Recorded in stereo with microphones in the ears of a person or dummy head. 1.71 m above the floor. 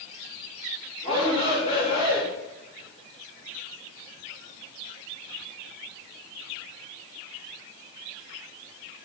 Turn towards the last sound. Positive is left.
turn(degrees=35)  # may be behind; listen again after turning